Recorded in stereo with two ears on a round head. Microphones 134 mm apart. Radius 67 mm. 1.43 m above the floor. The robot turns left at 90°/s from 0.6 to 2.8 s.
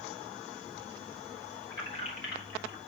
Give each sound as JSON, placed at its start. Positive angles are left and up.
{"t": 1.7, "sound": "keys jangling", "side_deg": 20, "distance_m": 3.5}